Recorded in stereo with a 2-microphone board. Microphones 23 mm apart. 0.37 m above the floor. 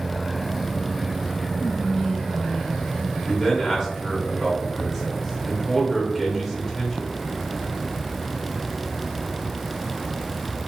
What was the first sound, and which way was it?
Whispering, 20° left (ahead or behind).